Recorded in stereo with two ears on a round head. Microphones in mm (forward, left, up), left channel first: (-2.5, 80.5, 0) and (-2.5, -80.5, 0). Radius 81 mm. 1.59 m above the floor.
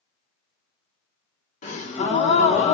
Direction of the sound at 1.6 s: 35° left (ahead or behind).